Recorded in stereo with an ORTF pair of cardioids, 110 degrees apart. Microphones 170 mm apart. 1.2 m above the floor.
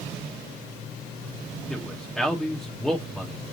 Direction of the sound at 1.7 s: 5° left.